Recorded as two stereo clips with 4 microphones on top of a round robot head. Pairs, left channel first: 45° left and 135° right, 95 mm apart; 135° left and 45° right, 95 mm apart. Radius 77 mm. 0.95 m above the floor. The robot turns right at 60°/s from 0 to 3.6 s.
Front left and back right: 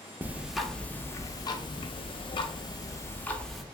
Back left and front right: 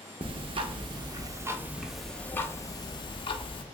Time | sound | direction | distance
0.2 | ticking | 65° right | 0.6 m